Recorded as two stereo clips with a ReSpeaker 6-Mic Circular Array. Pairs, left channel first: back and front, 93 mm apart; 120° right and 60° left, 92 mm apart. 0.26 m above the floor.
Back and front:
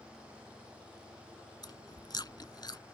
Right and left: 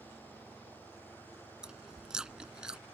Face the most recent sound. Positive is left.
turn(degrees=140)